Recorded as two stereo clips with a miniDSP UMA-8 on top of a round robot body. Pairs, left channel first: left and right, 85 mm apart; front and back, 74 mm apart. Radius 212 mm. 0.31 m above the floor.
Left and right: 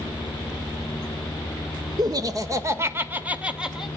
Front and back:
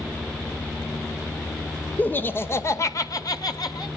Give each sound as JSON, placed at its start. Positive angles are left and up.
{"t": 2.0, "sound": "laughter", "azimuth_deg": -65, "distance_m": 2.0}